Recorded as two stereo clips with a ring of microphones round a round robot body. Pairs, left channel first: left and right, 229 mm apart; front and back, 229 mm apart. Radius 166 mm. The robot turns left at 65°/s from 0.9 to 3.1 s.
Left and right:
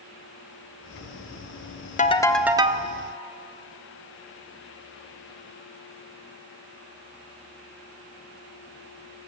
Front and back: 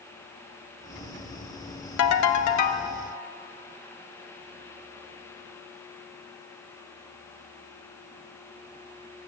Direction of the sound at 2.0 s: 25° left.